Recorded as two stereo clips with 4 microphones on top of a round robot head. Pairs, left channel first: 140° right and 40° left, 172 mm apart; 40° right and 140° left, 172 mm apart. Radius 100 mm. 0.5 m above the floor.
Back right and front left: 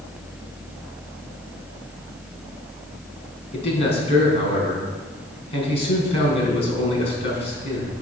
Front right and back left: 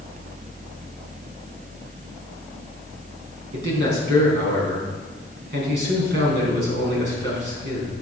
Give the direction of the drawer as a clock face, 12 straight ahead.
No drawer in this recording.